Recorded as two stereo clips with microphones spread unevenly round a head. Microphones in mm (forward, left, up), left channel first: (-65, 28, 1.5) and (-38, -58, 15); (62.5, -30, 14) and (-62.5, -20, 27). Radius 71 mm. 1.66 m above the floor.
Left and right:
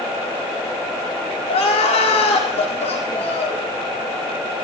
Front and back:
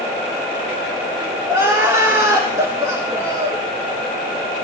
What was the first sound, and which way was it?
Crying, 105° left.